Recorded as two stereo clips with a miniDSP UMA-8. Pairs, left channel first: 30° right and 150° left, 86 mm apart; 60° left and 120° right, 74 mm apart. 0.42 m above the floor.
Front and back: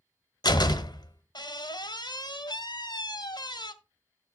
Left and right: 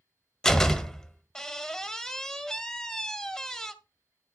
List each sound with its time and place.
0.4 s a door slam: 20° right, 1.0 m